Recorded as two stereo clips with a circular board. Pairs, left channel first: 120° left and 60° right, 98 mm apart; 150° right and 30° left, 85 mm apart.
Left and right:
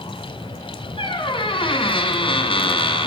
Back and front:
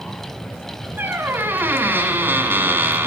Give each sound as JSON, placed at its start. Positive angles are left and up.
{"t": 1.0, "sound": "a squeak", "azimuth_deg": 95, "distance_m": 1.4}